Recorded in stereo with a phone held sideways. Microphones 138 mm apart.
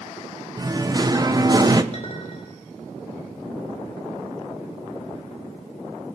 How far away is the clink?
About 3 m.